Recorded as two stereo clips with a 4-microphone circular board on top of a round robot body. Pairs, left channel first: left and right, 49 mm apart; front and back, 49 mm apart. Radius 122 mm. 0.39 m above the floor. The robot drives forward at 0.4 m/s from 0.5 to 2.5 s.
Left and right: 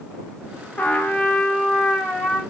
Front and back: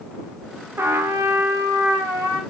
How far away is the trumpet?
About 0.7 m.